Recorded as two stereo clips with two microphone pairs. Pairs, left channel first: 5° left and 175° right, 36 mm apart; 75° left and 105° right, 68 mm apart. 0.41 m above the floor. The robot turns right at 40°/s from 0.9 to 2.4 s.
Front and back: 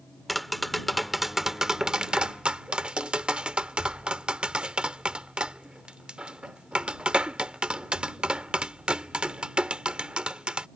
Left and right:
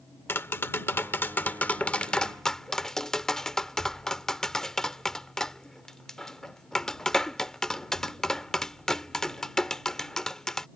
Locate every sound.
0.3 s tapping: 95° left; by 10.7 s 155° left